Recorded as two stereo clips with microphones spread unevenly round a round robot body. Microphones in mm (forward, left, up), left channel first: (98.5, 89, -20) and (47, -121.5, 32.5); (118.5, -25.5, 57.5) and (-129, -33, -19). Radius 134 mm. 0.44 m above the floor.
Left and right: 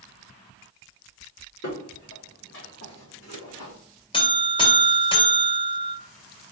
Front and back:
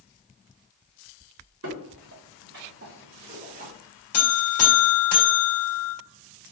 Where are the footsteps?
135° left, 2.5 m; by 3.7 s 115° left, 1.5 m.